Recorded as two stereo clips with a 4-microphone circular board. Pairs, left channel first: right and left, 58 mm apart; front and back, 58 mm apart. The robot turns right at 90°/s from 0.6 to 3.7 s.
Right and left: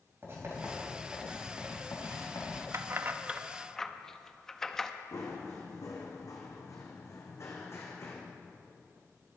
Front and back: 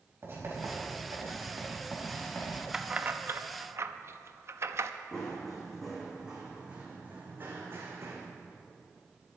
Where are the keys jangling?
105° left, 0.5 m; by 4.9 s 170° right, 0.5 m.